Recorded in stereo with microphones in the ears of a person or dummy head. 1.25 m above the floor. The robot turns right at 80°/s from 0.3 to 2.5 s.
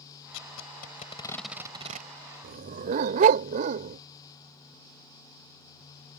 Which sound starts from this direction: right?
A dog barking, at 2.4 s.